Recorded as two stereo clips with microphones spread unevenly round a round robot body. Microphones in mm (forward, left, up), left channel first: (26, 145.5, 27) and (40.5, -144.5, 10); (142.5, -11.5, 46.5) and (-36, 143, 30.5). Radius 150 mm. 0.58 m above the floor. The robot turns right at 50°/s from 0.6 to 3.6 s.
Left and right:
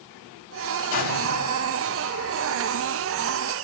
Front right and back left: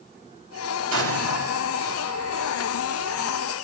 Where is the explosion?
120° left, 3.5 m; by 1.7 s 160° left, 3.5 m.